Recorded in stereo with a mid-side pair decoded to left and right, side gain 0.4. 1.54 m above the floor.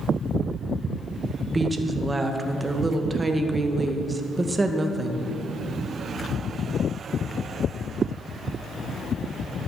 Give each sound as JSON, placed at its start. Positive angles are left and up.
{"t": 1.4, "sound": "a woman speaking", "azimuth_deg": -25, "distance_m": 1.8}